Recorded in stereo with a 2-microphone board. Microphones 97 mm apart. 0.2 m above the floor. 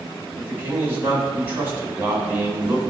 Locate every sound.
0.4 s a man speaking: 20° right (ahead or behind), 1.1 m